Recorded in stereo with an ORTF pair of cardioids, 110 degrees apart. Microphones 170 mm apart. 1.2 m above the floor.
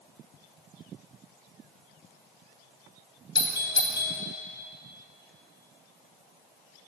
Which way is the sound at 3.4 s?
30° left.